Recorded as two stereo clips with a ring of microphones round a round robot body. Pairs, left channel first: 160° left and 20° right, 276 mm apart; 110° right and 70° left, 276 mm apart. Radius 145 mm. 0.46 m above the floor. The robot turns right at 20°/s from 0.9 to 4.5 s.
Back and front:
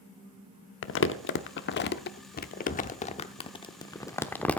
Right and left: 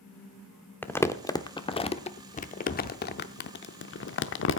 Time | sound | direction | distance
0.8 | crumpling | 170° left | 0.8 m